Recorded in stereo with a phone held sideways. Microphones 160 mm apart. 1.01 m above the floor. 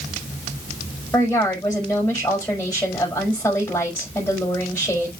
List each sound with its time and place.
1.1 s a woman speaking: 15° left (ahead or behind), 5 m